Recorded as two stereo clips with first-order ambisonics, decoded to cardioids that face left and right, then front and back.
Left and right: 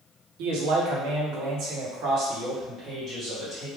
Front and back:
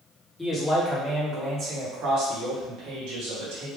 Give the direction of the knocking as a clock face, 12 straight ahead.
I don't hear knocking.